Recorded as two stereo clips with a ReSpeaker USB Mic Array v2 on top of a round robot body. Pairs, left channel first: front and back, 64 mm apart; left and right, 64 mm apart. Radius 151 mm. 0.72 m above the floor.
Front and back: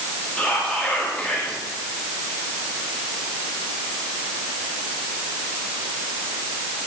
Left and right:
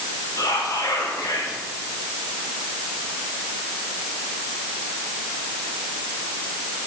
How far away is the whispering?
About 2 m.